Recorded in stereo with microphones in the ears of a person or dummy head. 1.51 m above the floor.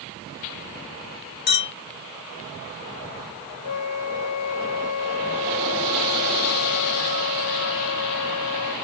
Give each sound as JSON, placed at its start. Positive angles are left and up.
{"t": 1.5, "sound": "a clink", "side_deg": 45, "distance_m": 1.5}
{"t": 3.6, "sound": "a flute", "side_deg": 85, "distance_m": 1.1}